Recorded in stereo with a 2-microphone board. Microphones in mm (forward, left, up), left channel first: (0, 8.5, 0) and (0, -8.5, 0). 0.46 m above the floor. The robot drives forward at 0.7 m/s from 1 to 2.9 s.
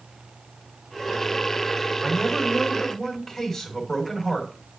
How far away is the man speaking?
About 2.5 m.